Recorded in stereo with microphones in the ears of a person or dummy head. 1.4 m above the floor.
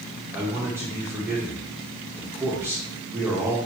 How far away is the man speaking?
About 1.4 m.